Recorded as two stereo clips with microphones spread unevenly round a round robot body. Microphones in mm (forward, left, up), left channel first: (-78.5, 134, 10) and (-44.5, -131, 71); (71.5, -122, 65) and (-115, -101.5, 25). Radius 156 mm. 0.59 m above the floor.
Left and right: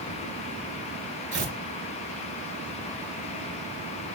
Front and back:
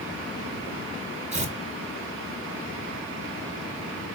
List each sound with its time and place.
1.3 s tearing paper: 135° right, 2.5 m